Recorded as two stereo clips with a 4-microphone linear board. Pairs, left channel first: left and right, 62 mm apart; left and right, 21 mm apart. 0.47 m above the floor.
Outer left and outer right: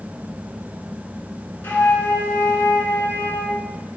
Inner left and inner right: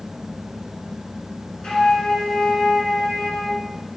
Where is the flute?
30° left (ahead or behind), 1.8 m.